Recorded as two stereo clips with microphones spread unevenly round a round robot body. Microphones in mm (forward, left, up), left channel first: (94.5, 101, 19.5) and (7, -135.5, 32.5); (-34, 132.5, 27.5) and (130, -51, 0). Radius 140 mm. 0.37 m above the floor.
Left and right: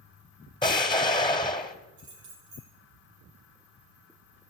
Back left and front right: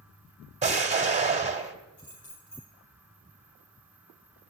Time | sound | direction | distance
0.6 | an explosion | 5° left | 2.5 m
2.0 | keys jangling | 165° right | 7 m